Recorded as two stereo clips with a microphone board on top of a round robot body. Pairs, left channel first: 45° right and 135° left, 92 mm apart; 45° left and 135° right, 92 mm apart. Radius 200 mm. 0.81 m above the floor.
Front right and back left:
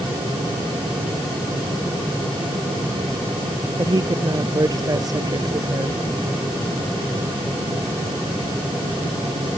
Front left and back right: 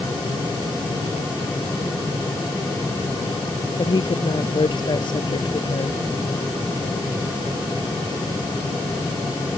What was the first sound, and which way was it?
A woman speaking, 85° left.